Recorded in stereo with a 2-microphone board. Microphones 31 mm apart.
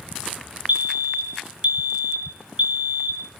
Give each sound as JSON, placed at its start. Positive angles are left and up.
{"t": 0.7, "sound": "a fire alarm", "side_deg": -50, "distance_m": 1.3}